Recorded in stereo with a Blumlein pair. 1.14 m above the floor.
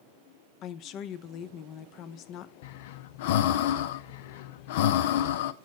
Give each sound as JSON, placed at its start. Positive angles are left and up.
{"t": 0.6, "sound": "a woman speaking", "azimuth_deg": 35, "distance_m": 0.7}
{"t": 2.6, "sound": "breathing", "azimuth_deg": 55, "distance_m": 0.5}